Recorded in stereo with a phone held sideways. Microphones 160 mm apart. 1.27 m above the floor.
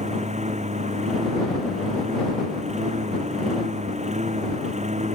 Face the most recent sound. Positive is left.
turn(degrees=-45)  # may be behind; listen again after turning